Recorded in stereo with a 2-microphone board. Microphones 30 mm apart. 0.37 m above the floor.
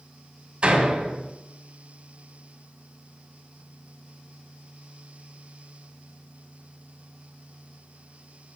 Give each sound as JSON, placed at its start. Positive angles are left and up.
{"t": 0.6, "sound": "a door slam", "side_deg": -45, "distance_m": 1.8}